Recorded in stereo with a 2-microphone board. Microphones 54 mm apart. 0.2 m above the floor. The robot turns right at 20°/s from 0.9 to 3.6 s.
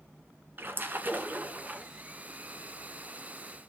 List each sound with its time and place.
0.6 s a splash: 40° right (ahead or behind), 1.9 m; by 1.9 s 25° right (ahead or behind), 1.9 m